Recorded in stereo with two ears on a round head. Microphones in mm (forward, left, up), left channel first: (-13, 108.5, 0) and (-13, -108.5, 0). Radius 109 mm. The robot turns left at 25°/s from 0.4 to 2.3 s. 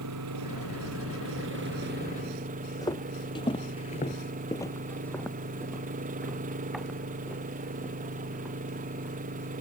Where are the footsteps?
15° left (ahead or behind); by 9.2 s 5° right (ahead or behind).